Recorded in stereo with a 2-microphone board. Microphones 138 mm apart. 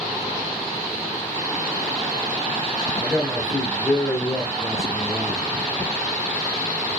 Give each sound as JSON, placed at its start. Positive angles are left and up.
{"t": 3.0, "sound": "a man speaking", "side_deg": 0, "distance_m": 1.1}